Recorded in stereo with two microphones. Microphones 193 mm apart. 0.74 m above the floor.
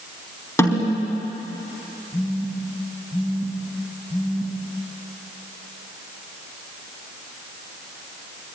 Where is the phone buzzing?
25° left (ahead or behind), 5 m.